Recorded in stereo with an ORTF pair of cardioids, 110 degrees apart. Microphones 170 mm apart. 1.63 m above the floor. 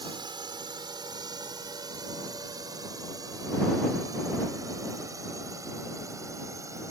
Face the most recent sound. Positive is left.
turn(degrees=-20)